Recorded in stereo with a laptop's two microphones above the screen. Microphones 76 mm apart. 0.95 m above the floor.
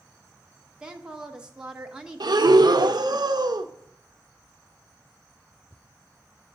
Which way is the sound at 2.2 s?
70° right (ahead or behind).